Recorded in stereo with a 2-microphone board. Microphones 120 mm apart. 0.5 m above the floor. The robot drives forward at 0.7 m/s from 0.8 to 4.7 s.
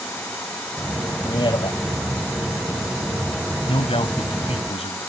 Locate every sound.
1.2 s a man speaking: 40° left (ahead or behind); by 1.8 s 50° left (ahead or behind)
3.7 s a man speaking: 55° left (ahead or behind); by 5.0 s 65° left (ahead or behind)